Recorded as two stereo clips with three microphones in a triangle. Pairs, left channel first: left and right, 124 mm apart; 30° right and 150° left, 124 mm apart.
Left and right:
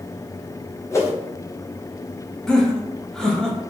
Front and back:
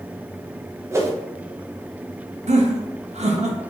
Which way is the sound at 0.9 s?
115° left.